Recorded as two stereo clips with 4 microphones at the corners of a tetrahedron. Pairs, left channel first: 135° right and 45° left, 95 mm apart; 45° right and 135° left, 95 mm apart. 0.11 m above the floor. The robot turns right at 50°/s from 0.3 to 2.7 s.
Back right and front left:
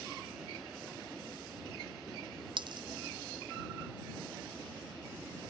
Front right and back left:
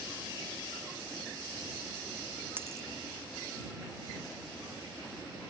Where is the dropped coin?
70° left; by 2.9 s 75° left.